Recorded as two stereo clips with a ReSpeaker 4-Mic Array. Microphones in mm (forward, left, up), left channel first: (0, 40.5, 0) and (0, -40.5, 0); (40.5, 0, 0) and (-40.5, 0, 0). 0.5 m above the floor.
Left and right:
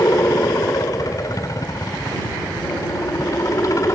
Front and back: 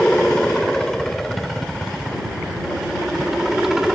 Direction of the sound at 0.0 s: 80° left.